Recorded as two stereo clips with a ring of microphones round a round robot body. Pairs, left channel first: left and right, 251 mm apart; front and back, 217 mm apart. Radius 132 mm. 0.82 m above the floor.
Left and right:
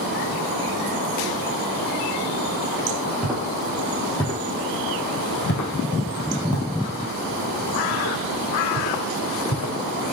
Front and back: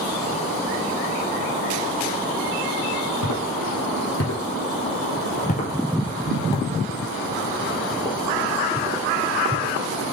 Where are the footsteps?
Straight ahead, 1.7 m; by 9.7 s 105° left, 2.5 m.